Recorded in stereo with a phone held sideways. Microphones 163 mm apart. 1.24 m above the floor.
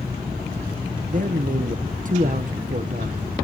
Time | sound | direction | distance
1.1 | a man speaking | 50° right (ahead or behind) | 0.7 m